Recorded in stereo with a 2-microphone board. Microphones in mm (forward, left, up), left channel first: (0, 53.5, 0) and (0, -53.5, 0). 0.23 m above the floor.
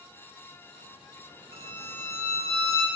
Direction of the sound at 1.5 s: 60° right (ahead or behind).